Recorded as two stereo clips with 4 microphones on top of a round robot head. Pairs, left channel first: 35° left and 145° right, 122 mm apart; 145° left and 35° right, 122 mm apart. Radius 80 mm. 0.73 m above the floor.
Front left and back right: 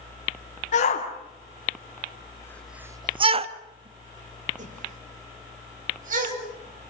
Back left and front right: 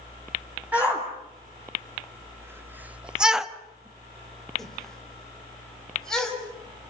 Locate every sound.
0.7 s a shout: 40° left, 2.5 m; by 6.9 s 130° right, 6 m